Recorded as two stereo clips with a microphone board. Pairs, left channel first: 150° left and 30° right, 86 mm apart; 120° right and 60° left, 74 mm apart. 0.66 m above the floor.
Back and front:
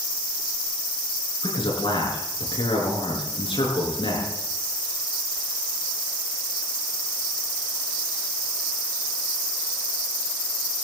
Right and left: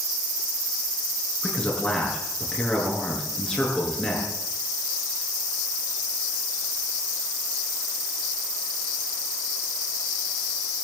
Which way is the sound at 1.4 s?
165° left.